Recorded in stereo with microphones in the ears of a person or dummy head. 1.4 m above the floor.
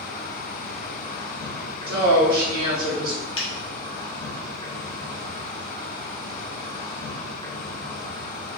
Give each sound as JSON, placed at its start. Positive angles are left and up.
{"t": 0.0, "sound": "an insect", "side_deg": 30, "distance_m": 0.9}
{"t": 1.9, "sound": "a woman speaking", "side_deg": -55, "distance_m": 0.9}
{"t": 3.4, "sound": "a finger snap", "side_deg": 30, "distance_m": 0.5}